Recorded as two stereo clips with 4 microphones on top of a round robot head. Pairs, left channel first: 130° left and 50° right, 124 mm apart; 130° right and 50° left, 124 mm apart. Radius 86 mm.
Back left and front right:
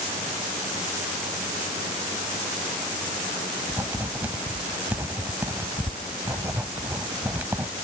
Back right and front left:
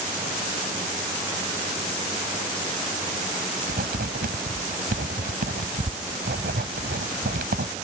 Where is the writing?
30° left.